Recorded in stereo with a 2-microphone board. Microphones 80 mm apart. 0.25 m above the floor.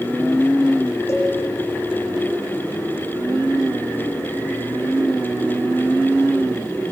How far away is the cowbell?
About 8 m.